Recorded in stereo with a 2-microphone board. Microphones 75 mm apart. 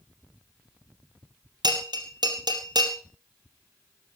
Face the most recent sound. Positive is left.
turn(degrees=-80)